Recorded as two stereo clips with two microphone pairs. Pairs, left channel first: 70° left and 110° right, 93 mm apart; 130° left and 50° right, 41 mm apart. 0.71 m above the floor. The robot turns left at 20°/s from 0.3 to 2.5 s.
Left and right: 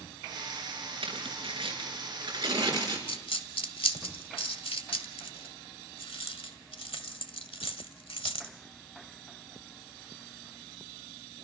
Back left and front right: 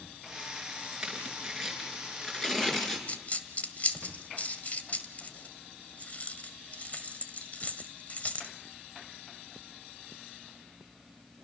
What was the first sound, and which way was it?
Tearing paper, 125° right.